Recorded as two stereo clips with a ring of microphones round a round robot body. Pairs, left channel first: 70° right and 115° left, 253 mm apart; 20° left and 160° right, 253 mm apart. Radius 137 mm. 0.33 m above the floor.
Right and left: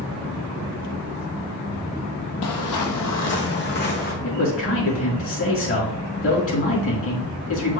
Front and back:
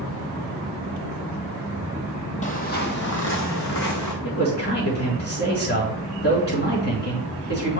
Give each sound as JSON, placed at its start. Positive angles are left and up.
{"t": 2.4, "sound": "footsteps", "azimuth_deg": -40, "distance_m": 0.9}
{"t": 4.2, "sound": "a man speaking", "azimuth_deg": -30, "distance_m": 4.0}